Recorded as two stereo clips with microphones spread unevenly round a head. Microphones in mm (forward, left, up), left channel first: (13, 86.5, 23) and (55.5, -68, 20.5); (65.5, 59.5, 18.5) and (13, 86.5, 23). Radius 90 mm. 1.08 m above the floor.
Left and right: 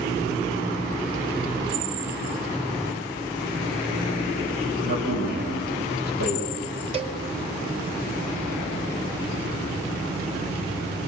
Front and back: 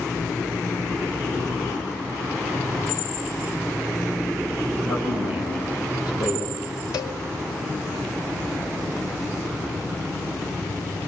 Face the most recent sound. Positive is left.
turn(degrees=-20)